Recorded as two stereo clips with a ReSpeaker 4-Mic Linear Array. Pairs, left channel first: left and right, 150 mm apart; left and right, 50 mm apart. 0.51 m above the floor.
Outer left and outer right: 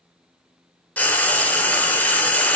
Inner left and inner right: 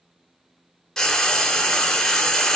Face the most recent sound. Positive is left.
turn(degrees=10)  # may be behind; listen again after turning